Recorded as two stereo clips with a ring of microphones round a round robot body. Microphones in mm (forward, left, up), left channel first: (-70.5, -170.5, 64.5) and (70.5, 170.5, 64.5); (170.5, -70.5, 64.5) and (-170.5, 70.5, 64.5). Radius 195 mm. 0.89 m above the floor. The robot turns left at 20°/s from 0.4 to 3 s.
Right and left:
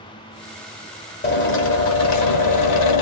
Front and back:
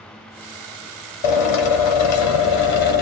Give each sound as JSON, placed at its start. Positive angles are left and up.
{"t": 1.2, "sound": "a drill", "azimuth_deg": -50, "distance_m": 0.6}